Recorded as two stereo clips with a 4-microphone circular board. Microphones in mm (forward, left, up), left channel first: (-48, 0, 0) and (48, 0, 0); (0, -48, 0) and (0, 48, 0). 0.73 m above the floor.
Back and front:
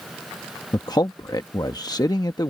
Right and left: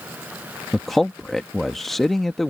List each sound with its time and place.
0.7 s a man speaking: 175° right